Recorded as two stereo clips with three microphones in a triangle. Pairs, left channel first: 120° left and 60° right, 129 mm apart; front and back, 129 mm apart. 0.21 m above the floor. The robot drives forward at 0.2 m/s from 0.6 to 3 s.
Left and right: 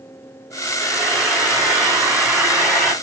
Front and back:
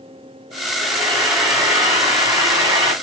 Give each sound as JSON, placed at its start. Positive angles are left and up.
{"t": 0.8, "sound": "frying", "azimuth_deg": -145, "distance_m": 1.7}